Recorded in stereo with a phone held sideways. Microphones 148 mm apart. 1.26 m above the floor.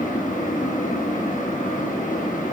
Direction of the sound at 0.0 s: 60° left (ahead or behind).